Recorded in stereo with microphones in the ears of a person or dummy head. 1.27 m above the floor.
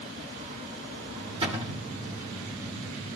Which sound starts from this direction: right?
A cupboard door, at 1.4 s.